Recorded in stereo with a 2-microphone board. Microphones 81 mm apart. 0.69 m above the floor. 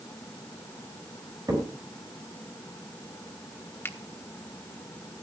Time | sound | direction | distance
1.5 | a crack | 50° right (ahead or behind) | 4.5 m
3.9 | a finger snap | 30° left (ahead or behind) | 1.3 m